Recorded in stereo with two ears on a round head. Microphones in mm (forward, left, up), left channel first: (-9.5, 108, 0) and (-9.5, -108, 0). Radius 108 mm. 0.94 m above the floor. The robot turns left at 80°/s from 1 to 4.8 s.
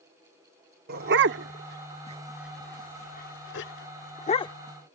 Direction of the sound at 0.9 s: 40° right (ahead or behind).